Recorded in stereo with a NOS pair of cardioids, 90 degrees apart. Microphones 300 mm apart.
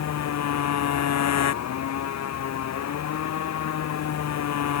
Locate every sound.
0.0 s a motorcycle: 60° left